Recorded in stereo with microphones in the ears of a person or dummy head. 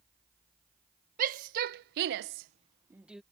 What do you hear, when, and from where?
1.2 s a shout: 45° right (ahead or behind); by 3.2 s centre (ahead or behind)